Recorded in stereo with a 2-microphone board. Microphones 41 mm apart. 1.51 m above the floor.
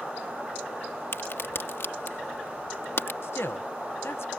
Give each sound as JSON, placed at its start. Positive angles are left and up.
{"t": 1.1, "sound": "a crack", "side_deg": 75}
{"t": 3.2, "sound": "a man speaking", "side_deg": 80}